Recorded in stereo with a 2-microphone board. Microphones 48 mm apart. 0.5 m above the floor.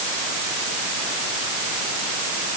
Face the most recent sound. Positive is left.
No sound to turn to.